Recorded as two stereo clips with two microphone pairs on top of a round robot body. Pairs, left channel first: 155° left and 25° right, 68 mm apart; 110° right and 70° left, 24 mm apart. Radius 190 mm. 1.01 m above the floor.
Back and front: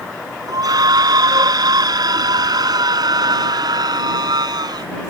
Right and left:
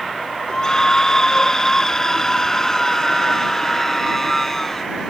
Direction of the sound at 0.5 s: 45° right.